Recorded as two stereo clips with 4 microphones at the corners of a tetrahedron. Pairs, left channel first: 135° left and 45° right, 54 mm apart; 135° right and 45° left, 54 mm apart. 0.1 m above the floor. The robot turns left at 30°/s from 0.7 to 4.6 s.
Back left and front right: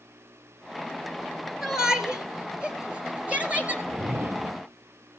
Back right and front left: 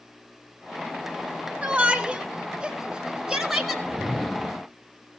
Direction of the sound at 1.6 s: 25° left.